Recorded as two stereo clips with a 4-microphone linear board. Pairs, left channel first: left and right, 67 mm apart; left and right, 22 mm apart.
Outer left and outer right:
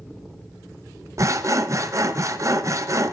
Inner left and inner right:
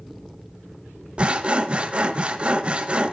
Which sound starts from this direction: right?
Sawing, at 1.2 s.